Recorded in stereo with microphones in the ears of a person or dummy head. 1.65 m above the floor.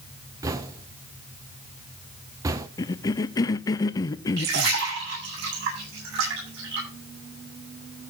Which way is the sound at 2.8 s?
20° left (ahead or behind).